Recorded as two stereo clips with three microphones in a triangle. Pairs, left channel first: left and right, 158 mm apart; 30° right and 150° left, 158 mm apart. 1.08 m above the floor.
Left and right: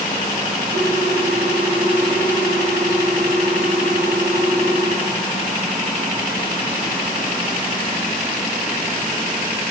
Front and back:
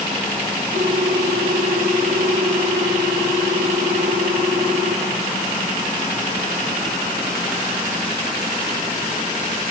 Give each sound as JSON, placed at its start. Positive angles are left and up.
{"t": 0.7, "sound": "a ringtone", "azimuth_deg": -80, "distance_m": 3.0}